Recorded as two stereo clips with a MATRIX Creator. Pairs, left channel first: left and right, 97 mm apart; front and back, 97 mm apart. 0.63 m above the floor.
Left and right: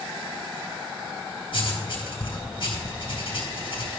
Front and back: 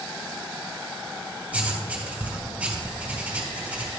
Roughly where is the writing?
Left.